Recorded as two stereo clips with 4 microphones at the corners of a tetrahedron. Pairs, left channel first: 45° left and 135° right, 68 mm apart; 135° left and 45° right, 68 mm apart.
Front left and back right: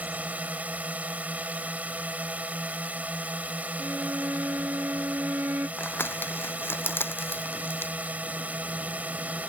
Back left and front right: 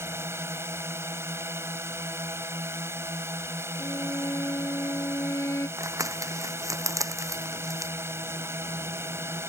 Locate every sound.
0.0 s a drone: 75° right
3.8 s a violin: 175° left
5.8 s crumpling: 10° right